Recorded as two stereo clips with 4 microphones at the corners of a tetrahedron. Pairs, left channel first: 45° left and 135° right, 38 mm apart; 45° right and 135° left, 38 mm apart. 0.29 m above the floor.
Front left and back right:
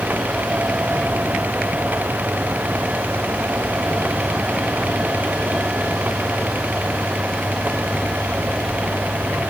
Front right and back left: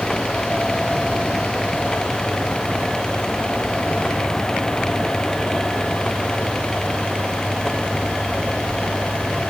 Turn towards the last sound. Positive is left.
No sound to turn to.